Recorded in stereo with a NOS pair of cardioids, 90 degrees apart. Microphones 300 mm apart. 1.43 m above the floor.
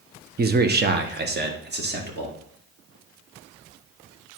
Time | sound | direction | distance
0.4 | a man speaking | 35° right | 1.0 m